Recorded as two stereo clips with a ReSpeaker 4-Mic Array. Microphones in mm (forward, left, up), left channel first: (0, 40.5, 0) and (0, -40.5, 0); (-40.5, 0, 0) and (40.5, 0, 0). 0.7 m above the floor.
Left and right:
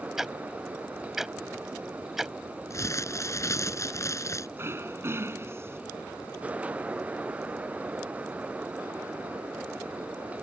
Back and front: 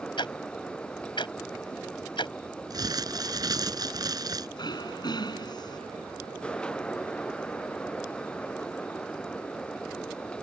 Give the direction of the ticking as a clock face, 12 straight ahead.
6 o'clock.